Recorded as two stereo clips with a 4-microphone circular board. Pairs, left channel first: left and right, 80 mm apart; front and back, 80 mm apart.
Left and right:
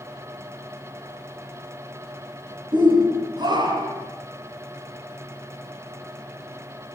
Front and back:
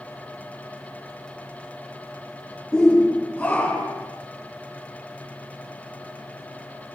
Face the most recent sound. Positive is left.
turn(degrees=-70)